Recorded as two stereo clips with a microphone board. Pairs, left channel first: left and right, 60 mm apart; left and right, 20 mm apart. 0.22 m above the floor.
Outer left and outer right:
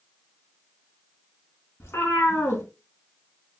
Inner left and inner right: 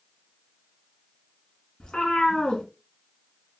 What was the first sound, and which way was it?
A cat meowing, 50° left (ahead or behind).